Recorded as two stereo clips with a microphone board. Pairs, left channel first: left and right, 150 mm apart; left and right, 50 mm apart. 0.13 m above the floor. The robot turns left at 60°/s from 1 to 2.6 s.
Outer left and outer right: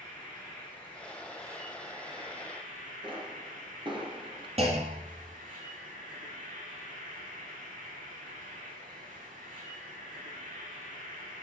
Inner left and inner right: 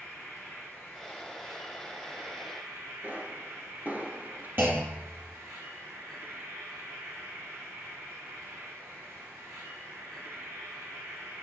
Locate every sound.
0.0 s an insect: 5° left, 3 m; by 11.4 s 90° right, 3 m
3.0 s a pop: 40° right (ahead or behind), 1.5 m
4.6 s a clunk: 50° right (ahead or behind), 1.9 m